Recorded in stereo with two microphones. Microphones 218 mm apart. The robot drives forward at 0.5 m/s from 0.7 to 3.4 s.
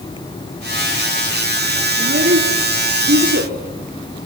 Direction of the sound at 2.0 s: 85° right.